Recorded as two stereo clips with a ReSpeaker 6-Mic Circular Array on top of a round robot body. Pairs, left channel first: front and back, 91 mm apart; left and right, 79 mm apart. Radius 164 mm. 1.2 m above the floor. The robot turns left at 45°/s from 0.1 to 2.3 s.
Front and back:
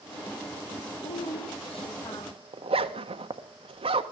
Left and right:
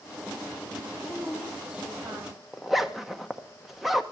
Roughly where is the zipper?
Behind.